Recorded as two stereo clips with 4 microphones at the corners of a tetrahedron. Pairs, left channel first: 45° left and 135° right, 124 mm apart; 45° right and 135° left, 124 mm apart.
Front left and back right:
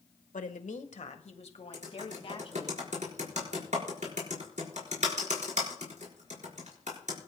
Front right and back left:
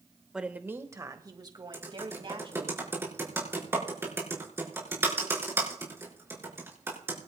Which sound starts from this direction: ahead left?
A woman speaking, at 0.3 s.